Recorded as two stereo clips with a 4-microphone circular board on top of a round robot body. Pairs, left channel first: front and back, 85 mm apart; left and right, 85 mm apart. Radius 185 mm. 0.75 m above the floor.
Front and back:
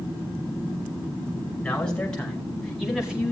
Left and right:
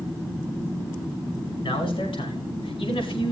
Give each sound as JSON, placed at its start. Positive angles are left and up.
{"t": 1.6, "sound": "a man speaking", "azimuth_deg": 80, "distance_m": 5.5}